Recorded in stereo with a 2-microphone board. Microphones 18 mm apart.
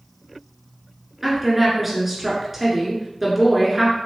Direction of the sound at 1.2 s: 10° right (ahead or behind).